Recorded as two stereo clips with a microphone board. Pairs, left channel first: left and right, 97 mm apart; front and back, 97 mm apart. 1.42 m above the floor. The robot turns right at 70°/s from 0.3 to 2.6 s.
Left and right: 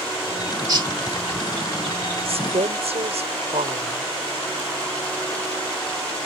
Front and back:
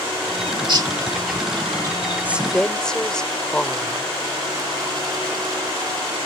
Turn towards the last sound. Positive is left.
turn(degrees=-85)